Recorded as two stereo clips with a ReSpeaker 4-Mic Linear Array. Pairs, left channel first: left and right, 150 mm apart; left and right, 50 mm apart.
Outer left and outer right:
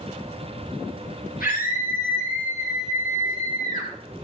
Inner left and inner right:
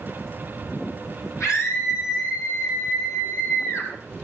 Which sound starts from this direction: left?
A scream, at 1.4 s.